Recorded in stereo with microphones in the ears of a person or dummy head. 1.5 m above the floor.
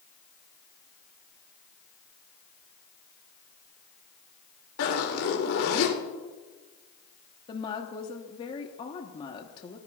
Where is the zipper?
80° left, 3 m.